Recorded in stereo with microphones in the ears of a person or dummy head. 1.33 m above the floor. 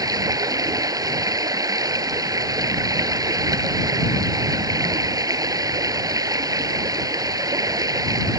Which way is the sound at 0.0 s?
15° right (ahead or behind).